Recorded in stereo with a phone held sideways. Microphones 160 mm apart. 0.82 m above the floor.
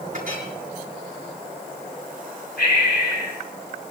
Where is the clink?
55° right (ahead or behind), 6 m.